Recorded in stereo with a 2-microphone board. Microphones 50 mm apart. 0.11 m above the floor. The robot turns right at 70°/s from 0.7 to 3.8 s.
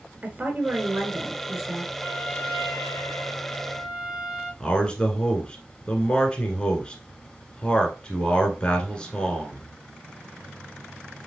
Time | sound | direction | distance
0.2 | a woman speaking | 30° right (ahead or behind) | 1.1 m
2.0 | a trumpet | 45° left | 3 m
4.6 | a man speaking | 20° left (ahead or behind) | 1.1 m